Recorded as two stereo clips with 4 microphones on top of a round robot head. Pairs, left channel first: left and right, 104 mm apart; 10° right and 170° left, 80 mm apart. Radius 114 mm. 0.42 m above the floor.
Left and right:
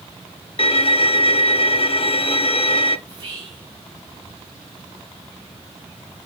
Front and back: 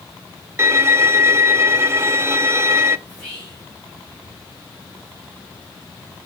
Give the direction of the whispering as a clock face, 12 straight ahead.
3 o'clock.